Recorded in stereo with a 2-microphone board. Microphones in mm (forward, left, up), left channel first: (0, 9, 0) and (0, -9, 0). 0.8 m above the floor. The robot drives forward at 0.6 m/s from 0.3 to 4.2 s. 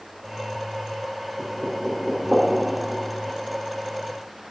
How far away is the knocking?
About 2.5 m.